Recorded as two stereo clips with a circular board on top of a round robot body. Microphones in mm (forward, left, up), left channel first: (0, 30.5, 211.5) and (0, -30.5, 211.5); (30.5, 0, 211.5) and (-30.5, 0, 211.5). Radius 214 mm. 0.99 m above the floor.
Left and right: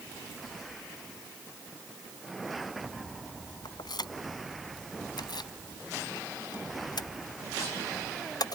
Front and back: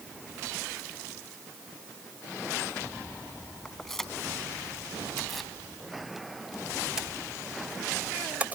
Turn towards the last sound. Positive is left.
turn(degrees=115)